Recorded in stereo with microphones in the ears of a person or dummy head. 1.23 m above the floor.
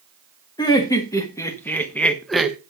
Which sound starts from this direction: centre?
Laughter, at 0.6 s.